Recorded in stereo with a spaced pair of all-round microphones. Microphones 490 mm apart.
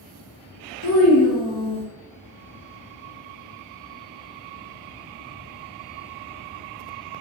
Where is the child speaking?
30° left (ahead or behind), 0.8 m.